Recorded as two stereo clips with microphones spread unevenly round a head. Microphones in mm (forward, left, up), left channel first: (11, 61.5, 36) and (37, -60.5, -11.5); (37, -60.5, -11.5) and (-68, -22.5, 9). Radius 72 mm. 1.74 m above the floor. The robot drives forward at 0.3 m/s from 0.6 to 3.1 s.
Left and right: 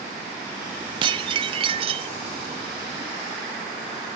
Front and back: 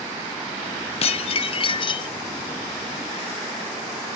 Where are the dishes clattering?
20° right, 1.0 m; by 2.1 s 35° right, 0.9 m.